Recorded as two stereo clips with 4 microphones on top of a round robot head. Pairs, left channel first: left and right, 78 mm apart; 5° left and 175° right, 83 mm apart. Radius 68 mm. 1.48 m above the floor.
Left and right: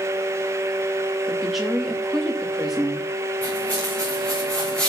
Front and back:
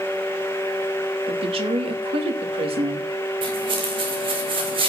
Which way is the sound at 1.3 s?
175° right.